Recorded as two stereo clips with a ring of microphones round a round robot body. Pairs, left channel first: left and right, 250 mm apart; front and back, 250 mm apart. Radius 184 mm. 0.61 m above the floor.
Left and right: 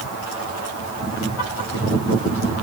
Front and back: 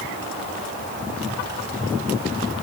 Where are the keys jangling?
I don't hear keys jangling.